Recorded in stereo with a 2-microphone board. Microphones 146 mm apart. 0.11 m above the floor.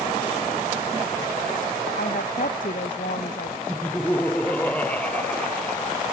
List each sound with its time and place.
2.0 s a woman speaking: 60° left (ahead or behind)
3.7 s laughter: 10° left (ahead or behind)